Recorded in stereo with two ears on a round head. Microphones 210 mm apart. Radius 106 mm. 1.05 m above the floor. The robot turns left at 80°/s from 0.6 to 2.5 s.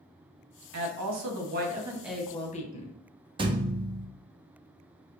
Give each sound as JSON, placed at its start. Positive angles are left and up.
{"t": 0.7, "sound": "a woman speaking", "azimuth_deg": -70, "distance_m": 1.0}
{"t": 3.4, "sound": "a thud", "side_deg": -20, "distance_m": 0.5}